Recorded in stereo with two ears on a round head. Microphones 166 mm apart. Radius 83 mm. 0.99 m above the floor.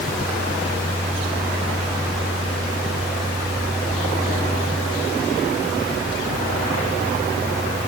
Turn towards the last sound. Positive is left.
No sound to turn to.